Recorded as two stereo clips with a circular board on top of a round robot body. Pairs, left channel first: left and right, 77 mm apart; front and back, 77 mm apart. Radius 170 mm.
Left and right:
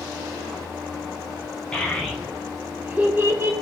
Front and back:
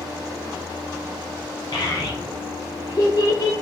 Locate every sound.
1.7 s a child speaking: 10° left, 1.9 m; by 3.5 s 40° right, 2.0 m